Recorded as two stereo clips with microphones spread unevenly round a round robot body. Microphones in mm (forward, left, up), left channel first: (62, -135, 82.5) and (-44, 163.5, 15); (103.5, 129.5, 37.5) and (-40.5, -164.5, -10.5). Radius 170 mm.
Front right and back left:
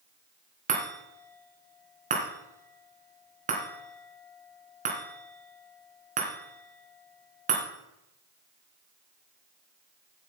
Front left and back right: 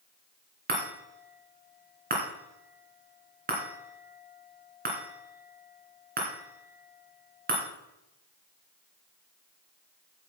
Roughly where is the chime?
Behind.